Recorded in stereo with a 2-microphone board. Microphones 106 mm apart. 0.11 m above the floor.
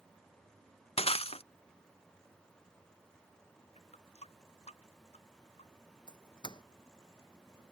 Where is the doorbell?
45° left (ahead or behind).